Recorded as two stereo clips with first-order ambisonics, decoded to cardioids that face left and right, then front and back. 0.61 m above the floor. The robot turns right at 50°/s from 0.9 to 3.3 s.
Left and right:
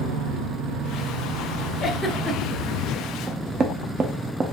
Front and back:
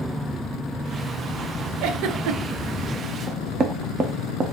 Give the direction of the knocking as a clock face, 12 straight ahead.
5 o'clock.